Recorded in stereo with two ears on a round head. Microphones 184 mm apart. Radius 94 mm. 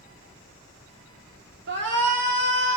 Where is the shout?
60° right (ahead or behind), 2 m; by 2.8 s 65° right (ahead or behind), 2.5 m.